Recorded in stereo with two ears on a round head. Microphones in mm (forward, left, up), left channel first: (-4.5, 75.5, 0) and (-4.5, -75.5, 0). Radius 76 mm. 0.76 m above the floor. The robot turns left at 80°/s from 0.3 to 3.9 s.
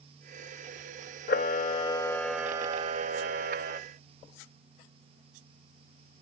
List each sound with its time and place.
1.3 s a camera shutter: 85° left, 0.6 m; by 3.8 s 115° right, 0.6 m